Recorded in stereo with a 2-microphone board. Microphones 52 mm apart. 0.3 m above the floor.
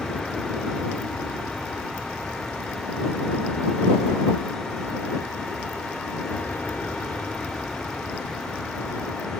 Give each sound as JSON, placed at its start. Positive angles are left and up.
{"t": 0.0, "sound": "an aircraft", "side_deg": 5}